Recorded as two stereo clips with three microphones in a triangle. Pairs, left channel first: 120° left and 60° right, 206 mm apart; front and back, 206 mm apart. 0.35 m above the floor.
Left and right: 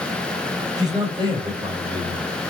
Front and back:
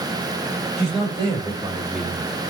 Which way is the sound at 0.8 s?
130° right.